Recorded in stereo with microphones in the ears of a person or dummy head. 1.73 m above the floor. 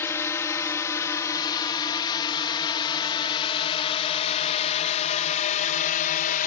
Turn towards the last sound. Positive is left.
turn(degrees=40)  # may be behind; listen again after turning